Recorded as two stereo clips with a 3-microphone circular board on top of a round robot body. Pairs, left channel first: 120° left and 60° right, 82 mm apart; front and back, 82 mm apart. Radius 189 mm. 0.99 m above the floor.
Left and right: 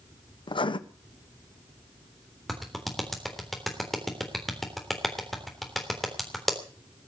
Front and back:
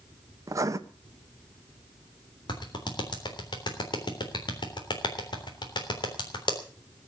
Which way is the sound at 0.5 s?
130° left.